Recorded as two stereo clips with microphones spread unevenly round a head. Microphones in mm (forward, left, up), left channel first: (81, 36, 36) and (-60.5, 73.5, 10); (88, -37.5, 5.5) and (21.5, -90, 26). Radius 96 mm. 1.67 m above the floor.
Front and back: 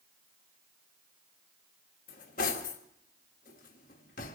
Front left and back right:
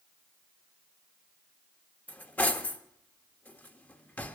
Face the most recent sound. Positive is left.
turn(degrees=-35)